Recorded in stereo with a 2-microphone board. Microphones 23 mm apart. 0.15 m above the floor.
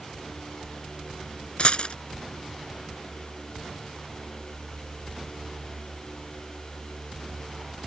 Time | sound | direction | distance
1.6 | a dropped coin | 50° left (ahead or behind) | ?